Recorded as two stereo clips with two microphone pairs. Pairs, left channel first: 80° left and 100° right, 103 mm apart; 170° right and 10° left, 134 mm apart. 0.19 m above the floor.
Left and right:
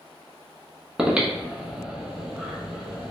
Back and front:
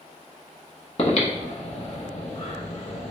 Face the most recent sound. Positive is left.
turn(degrees=180)